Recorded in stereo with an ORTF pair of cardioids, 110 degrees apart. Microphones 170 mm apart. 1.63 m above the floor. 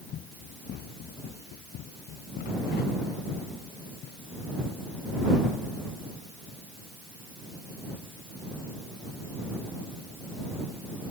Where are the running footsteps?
70° left.